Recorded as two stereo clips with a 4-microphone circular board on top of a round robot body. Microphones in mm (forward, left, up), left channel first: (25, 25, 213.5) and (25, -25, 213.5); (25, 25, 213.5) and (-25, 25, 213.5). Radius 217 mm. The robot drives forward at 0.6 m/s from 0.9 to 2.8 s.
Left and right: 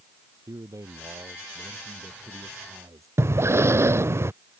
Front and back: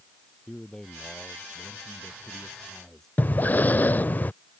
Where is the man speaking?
80° right; by 3.1 s 85° right.